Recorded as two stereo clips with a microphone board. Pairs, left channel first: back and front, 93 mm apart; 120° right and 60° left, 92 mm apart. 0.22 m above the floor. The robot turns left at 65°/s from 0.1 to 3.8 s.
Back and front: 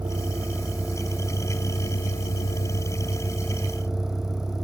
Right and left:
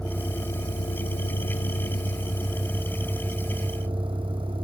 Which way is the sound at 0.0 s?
35° right.